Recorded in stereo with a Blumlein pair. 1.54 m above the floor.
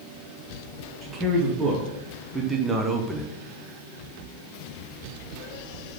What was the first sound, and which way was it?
A man speaking, 15° right.